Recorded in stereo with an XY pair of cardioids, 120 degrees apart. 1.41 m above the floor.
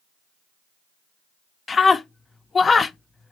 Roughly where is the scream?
Ahead left.